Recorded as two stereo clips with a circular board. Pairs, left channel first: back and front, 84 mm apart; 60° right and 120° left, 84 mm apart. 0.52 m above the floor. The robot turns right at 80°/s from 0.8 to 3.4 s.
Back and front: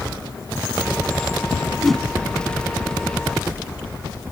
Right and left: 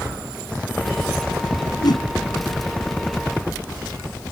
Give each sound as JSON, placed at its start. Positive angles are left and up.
{"t": 1.8, "sound": "a whoosh", "azimuth_deg": -95}